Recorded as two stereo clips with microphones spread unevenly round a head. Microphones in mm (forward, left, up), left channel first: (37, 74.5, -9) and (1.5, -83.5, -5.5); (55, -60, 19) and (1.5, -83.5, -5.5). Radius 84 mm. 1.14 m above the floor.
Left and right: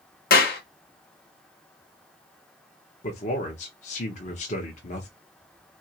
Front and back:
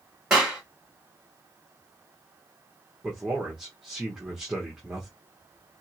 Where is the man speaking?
125° left, 0.9 m.